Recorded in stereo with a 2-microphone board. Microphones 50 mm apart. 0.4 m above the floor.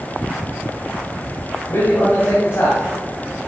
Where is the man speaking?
55° left (ahead or behind), 2.5 m.